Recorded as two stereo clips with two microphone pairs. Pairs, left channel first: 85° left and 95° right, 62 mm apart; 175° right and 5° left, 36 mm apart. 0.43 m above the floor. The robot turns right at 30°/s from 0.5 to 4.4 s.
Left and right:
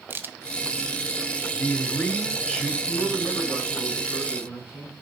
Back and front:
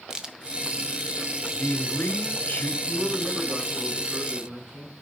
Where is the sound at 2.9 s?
20° left, 4 m; by 4.9 s 70° left, 4 m.